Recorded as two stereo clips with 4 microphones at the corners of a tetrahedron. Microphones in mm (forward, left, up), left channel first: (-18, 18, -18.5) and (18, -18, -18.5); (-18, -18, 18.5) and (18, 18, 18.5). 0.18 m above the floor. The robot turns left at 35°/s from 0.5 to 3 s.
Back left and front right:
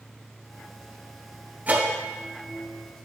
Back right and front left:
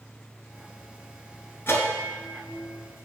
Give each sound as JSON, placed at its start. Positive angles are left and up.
{"t": 1.7, "sound": "a bell", "azimuth_deg": -100, "distance_m": 1.1}